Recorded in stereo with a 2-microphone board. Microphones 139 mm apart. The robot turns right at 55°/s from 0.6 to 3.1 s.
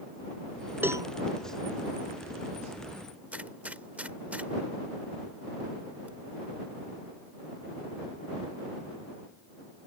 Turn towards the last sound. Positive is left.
turn(degrees=-10)  # may be behind; listen again after turning